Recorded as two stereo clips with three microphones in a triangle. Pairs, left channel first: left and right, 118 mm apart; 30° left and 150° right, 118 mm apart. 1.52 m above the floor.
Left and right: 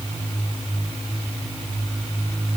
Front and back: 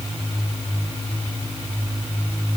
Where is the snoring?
I don't hear snoring.